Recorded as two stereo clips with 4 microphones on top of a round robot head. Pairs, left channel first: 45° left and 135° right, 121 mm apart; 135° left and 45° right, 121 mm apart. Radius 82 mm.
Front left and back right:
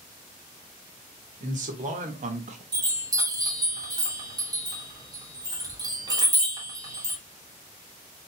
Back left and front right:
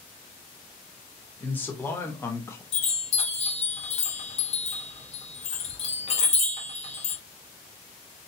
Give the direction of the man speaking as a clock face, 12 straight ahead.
5 o'clock.